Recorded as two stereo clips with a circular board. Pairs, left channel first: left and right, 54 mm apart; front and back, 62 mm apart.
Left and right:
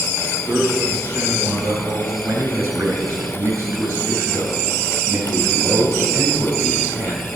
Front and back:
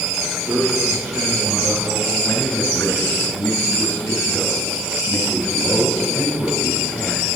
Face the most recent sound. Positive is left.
turn(degrees=-60)